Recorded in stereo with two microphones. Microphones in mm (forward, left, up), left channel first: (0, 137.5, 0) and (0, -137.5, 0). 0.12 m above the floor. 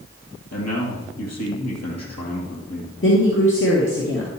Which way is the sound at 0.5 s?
65° left (ahead or behind).